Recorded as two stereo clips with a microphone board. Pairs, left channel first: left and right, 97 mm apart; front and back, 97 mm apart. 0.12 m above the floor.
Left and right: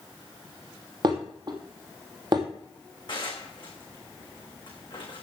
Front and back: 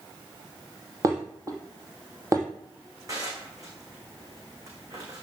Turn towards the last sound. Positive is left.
turn(degrees=125)